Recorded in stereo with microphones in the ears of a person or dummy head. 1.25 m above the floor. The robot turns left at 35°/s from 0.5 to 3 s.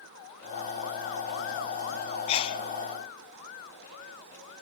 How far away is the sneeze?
About 0.6 m.